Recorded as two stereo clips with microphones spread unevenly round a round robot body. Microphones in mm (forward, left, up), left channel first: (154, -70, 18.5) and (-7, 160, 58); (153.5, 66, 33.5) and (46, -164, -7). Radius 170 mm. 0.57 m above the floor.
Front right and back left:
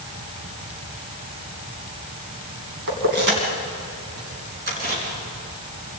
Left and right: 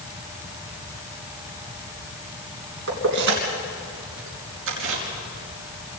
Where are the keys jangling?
175° right, 3 m; by 5.0 s 170° right, 4.5 m.